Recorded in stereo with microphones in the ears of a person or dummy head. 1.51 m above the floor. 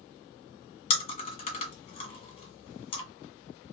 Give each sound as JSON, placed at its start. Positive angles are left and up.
{"t": 0.9, "sound": "chewing", "side_deg": 35, "distance_m": 1.6}